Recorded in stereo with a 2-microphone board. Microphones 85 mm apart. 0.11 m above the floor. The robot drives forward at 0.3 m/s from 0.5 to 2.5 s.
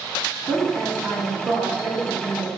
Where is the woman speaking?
30° right (ahead or behind), 1.4 m; by 2.6 s 25° right (ahead or behind), 1.5 m.